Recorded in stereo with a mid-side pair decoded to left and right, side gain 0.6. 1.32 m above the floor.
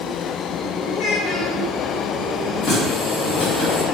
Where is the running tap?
60° left, 1.9 m.